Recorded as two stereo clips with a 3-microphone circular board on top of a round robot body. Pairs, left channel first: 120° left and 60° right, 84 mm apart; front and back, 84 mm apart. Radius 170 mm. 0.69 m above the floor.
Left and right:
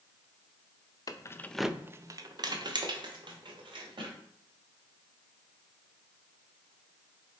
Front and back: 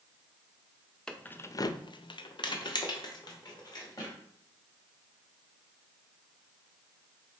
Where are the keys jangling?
80° left, 0.5 m; by 4.2 s 40° right, 1.7 m.